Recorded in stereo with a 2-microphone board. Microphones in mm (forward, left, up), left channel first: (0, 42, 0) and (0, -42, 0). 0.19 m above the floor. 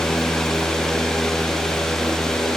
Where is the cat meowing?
No cat meowing in this recording.